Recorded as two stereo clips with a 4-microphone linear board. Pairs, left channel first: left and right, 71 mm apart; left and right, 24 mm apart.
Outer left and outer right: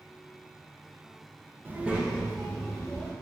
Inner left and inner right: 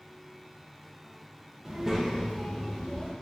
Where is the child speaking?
30° right (ahead or behind), 0.5 m; by 3.1 s 10° left (ahead or behind), 1.3 m.